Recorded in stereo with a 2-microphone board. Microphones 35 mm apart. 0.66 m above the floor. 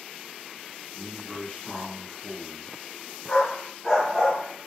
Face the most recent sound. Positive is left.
turn(degrees=10)  # may be behind; listen again after turning